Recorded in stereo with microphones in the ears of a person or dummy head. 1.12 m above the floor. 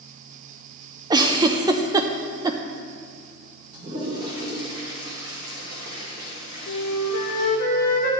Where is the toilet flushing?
25° right (ahead or behind), 2.5 m.